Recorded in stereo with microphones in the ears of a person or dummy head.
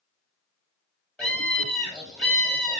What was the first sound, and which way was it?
A scream, 5° left (ahead or behind).